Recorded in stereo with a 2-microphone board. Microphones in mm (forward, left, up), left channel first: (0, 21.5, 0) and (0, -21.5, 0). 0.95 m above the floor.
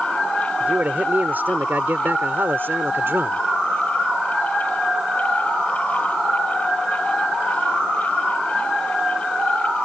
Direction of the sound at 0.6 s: 40° right (ahead or behind).